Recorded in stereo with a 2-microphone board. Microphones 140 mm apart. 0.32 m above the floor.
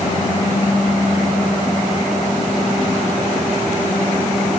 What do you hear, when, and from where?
Only background noise.